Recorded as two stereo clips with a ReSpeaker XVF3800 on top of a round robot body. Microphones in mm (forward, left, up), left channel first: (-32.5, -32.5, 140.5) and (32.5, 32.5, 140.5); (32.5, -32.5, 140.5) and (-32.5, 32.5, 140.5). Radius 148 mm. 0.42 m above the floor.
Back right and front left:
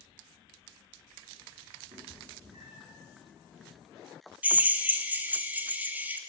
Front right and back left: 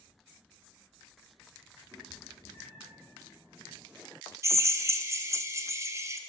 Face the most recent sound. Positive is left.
turn(degrees=105)